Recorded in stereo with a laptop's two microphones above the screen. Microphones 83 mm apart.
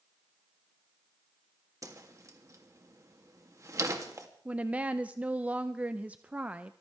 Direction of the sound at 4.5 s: 15° right (ahead or behind).